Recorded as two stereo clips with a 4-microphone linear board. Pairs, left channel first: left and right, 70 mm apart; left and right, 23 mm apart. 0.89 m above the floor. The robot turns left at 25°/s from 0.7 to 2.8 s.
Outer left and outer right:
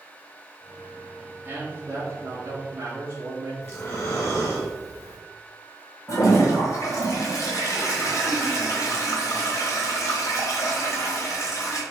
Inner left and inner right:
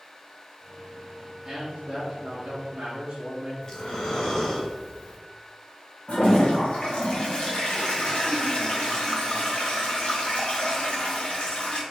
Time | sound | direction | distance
1.4 | a man speaking | 50° right | 1.0 m
3.6 | breathing | 35° left (ahead or behind) | 1.7 m
6.1 | a toilet flushing | 55° left (ahead or behind) | 1.2 m